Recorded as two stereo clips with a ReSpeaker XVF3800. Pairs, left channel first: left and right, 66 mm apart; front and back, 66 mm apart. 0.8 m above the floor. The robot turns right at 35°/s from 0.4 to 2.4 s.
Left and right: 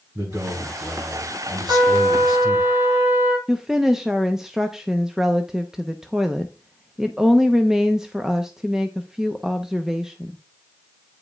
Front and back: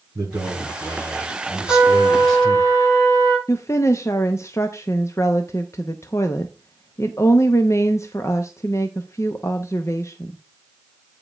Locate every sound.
0.1 s a man speaking: 150° right, 7 m; by 2.7 s 80° right, 7 m
1.7 s a trumpet: 60° right, 6 m; by 3.4 s 35° right, 6 m
3.5 s a woman speaking: 10° right, 0.8 m